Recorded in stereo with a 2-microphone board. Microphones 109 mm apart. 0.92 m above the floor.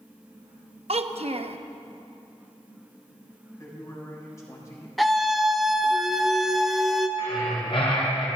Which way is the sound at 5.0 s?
Centre (ahead or behind).